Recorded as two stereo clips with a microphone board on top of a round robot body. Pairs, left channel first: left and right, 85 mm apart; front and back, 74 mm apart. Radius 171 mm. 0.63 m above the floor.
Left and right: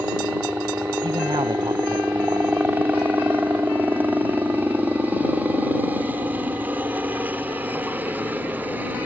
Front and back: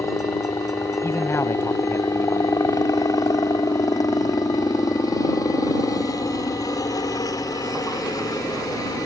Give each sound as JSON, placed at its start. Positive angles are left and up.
{"t": 0.0, "sound": "a helicopter", "azimuth_deg": -25}
{"t": 1.0, "sound": "a man speaking", "azimuth_deg": -50}